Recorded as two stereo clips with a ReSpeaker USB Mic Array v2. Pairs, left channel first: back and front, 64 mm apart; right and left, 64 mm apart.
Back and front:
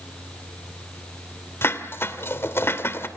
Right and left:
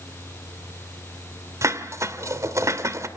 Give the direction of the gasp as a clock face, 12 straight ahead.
I don't hear a gasp.